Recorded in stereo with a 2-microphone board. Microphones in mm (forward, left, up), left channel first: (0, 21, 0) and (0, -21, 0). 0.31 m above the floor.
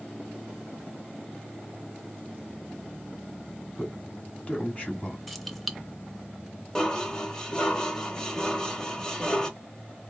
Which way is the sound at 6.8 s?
15° left (ahead or behind).